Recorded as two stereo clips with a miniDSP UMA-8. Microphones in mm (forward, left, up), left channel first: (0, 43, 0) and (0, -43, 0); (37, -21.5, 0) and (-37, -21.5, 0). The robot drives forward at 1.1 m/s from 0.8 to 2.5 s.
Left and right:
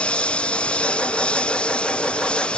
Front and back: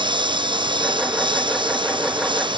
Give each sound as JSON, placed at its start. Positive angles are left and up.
{"t": 0.0, "sound": "a lawn mower", "azimuth_deg": 170}